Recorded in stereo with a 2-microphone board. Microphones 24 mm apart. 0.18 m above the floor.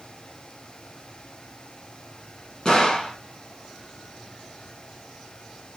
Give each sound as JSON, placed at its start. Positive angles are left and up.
{"t": 2.6, "sound": "a gunshot", "side_deg": 35, "distance_m": 1.1}